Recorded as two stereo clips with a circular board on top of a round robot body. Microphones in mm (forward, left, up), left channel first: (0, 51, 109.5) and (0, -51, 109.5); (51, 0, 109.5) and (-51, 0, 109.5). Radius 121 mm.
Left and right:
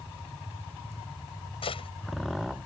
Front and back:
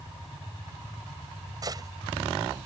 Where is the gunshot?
125° left.